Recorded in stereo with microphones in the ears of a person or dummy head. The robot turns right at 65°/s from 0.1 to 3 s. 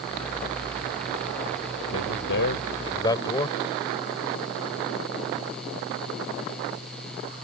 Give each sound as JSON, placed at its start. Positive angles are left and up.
{"t": 1.9, "sound": "a man speaking", "azimuth_deg": 90}